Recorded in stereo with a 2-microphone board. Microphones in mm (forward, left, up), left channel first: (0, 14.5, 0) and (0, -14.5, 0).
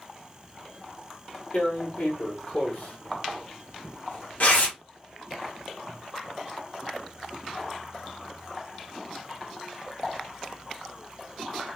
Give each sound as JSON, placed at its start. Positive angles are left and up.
{"t": 1.5, "sound": "tearing paper", "side_deg": 50, "distance_m": 1.4}